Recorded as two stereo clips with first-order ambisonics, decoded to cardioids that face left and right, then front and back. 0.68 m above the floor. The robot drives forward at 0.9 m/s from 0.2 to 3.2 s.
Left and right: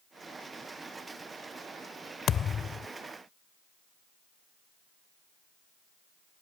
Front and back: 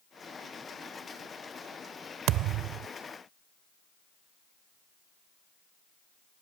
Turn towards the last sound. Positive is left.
turn(degrees=160)